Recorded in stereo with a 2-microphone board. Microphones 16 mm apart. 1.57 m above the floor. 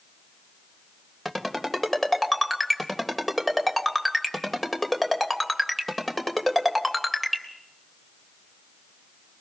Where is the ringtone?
10° left (ahead or behind), 3 m.